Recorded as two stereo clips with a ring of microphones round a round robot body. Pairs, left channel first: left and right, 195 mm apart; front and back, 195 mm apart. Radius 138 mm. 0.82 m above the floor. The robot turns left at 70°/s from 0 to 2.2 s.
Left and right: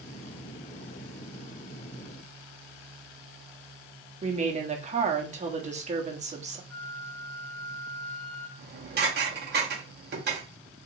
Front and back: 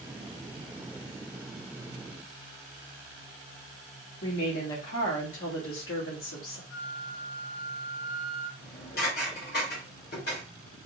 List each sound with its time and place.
4.2 s a woman speaking: 35° right, 1.0 m
6.7 s a flute: 10° left, 2 m
8.6 s dishes clattering: 55° right, 1.0 m